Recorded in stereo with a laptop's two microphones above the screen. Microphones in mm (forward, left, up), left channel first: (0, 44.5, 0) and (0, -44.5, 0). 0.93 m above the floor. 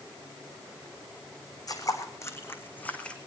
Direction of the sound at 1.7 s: 45° left (ahead or behind).